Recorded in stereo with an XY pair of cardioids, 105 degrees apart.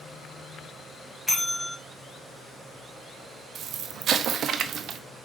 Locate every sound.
1.3 s a bell: 10° left, 1.8 m
3.5 s an explosion: 60° right, 0.8 m